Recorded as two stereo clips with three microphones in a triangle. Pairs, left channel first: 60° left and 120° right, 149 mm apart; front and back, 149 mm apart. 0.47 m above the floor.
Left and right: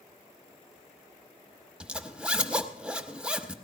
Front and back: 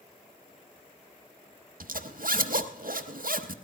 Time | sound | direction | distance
1.8 | a zipper | 155° left | 0.8 m